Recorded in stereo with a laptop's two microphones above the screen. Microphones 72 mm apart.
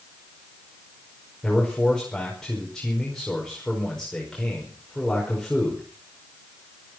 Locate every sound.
1.4 s a man speaking: 5° left (ahead or behind), 5 m